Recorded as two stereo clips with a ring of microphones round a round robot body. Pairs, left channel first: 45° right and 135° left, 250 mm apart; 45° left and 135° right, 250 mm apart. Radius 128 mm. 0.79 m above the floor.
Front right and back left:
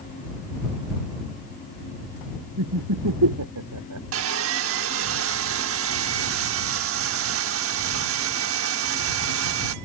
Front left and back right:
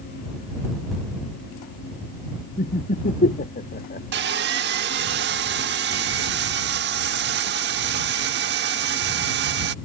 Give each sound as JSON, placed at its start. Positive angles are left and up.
{"t": 2.6, "sound": "laughter", "azimuth_deg": 105}
{"t": 4.1, "sound": "sawing", "azimuth_deg": 175}